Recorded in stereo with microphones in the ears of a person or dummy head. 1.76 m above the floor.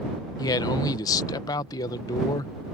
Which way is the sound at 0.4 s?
20° left (ahead or behind).